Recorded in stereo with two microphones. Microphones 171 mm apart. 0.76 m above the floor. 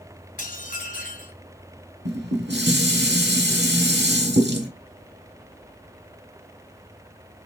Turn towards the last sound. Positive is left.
turn(degrees=-85)